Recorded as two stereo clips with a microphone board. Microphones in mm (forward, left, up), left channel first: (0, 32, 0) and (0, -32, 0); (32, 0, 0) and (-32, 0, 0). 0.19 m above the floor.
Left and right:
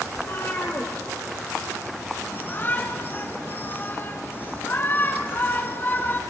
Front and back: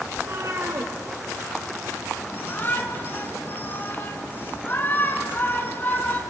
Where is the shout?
45° left, 2 m.